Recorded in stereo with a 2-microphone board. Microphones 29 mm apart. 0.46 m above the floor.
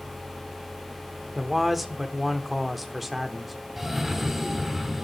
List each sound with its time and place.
1.4 s a man speaking: centre (ahead or behind), 0.8 m
3.8 s a cough: 5° right (ahead or behind), 1.0 m